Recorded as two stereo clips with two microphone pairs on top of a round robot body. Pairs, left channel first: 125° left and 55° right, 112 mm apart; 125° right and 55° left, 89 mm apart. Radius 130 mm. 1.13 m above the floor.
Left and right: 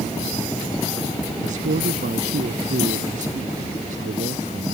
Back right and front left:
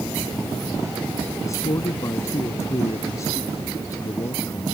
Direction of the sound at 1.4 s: 65° right.